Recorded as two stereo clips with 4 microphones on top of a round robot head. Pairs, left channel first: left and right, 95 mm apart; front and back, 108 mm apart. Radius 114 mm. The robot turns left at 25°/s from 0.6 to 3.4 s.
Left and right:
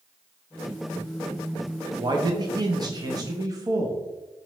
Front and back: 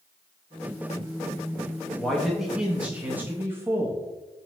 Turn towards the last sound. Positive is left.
turn(degrees=-120)